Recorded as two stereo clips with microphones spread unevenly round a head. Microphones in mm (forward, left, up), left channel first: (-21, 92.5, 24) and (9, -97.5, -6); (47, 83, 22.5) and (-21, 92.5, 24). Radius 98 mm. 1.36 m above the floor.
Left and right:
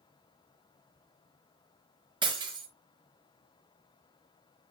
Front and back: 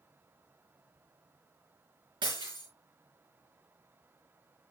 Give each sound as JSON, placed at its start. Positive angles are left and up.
{"t": 2.2, "sound": "breaking glass", "azimuth_deg": -150, "distance_m": 4.0}